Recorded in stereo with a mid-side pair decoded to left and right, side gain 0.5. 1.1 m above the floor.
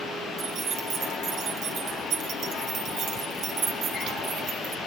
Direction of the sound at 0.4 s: 70° right.